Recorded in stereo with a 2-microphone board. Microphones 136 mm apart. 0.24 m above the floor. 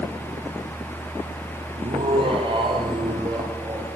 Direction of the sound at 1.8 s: 45° right (ahead or behind).